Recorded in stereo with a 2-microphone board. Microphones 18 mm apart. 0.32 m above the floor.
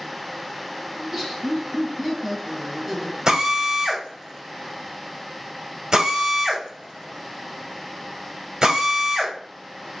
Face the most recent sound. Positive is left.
turn(degrees=-35)  # may be behind; listen again after turning